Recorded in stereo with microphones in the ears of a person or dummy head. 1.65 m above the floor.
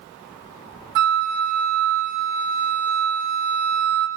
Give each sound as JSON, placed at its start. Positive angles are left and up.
{"t": 0.9, "sound": "a flute", "side_deg": -65, "distance_m": 3.0}